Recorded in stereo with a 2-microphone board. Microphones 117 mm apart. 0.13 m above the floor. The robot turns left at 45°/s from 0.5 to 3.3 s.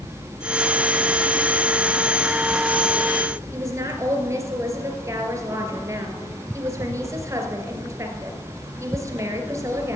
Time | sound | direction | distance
3.5 | a woman speaking | 25° right (ahead or behind) | 2.5 m